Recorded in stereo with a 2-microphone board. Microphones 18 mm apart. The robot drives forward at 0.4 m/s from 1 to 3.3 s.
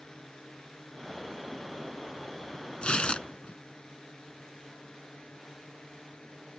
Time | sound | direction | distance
0.0 | a drone | 50° left (ahead or behind) | ?
2.8 | tearing paper | 70° left (ahead or behind) | ?